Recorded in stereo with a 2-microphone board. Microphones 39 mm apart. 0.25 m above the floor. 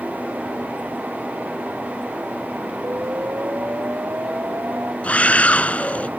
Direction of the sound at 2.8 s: 75° right (ahead or behind).